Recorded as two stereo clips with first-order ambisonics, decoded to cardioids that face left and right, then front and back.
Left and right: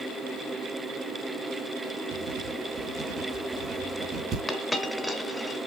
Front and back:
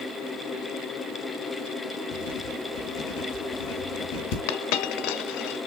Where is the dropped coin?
5° left, 1.3 m.